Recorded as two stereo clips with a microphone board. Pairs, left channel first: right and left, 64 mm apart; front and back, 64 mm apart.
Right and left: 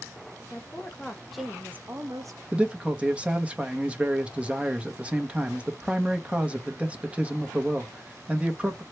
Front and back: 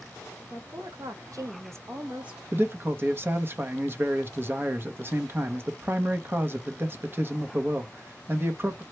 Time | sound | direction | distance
0.5 | a woman speaking | 145° right | 1.1 m
2.5 | a man speaking | 150° left | 0.7 m